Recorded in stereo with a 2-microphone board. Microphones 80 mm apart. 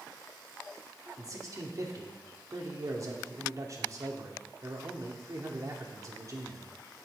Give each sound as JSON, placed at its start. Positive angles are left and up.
{"t": 1.2, "sound": "a man speaking", "side_deg": -45, "distance_m": 2.5}